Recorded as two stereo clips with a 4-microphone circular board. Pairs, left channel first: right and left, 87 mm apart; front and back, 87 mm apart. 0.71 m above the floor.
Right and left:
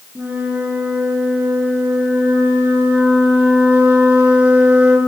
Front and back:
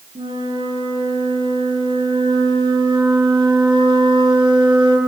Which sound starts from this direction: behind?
A flute, at 0.1 s.